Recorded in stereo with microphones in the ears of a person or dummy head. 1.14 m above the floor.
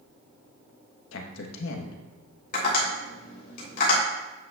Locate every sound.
1.1 s a man speaking: 70° left (ahead or behind), 1.2 m
2.5 s tapping: 50° left (ahead or behind), 3.5 m